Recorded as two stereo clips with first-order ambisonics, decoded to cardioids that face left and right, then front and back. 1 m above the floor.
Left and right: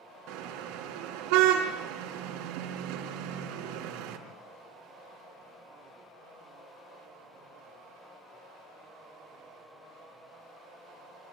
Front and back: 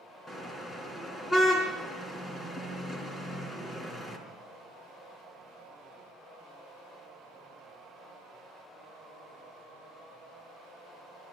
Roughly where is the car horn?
Right.